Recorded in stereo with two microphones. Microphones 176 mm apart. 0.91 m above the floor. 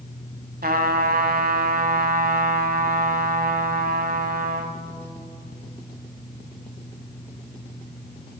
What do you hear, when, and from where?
0.6 s a trumpet: 60° right (ahead or behind), 1.2 m